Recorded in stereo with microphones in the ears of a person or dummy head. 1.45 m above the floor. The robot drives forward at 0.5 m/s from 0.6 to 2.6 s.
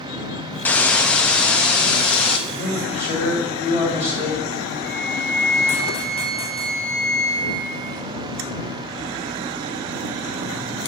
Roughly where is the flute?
Right.